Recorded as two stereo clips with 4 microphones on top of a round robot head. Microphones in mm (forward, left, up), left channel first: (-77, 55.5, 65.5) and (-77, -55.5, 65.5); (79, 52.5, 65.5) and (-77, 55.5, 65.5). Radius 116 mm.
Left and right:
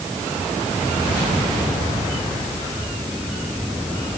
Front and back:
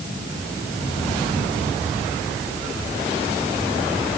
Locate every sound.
Only background noise.